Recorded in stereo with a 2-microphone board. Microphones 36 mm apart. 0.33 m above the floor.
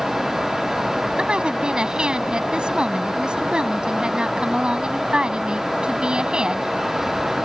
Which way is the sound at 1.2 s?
25° right (ahead or behind).